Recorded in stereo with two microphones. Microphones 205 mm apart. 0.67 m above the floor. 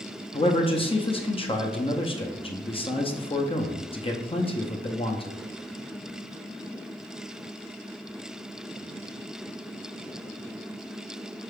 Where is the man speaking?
25° left (ahead or behind), 0.5 m.